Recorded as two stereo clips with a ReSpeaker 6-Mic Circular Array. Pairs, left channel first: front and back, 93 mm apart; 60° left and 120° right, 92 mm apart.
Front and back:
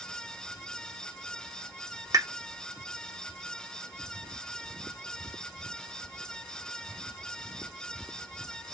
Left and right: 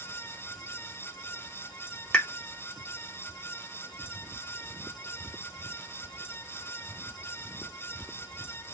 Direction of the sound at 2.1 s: 140° left.